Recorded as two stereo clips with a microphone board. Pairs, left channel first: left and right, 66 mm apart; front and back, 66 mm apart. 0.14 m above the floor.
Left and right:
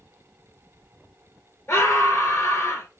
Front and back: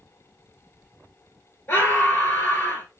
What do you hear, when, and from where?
1.7 s a scream: 55° left, 2 m